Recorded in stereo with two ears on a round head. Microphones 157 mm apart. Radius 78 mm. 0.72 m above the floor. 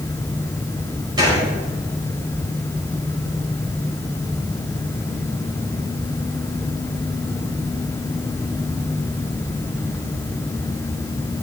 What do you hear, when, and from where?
1.2 s a gunshot: 25° right (ahead or behind), 4.5 m